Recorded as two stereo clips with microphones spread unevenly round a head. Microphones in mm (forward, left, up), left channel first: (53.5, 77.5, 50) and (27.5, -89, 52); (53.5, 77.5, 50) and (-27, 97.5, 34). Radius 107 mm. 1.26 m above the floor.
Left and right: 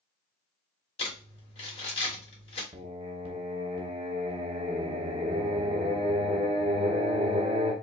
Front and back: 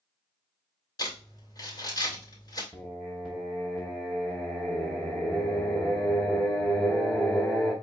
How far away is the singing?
About 0.8 m.